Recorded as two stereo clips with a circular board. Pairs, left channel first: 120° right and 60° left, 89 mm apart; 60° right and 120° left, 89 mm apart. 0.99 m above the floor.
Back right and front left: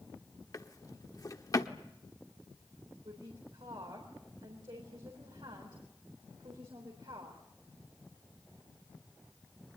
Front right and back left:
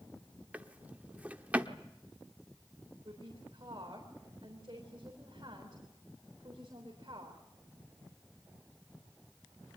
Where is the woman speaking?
85° left, 4 m.